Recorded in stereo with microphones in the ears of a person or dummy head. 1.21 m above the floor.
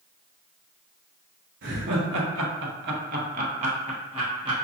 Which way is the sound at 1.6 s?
50° right (ahead or behind).